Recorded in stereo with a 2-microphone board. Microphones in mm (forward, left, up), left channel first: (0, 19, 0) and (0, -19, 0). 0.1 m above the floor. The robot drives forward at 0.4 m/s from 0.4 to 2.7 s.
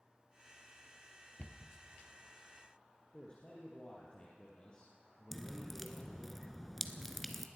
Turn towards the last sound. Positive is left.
turn(degrees=5)  # may be behind; listen again after turning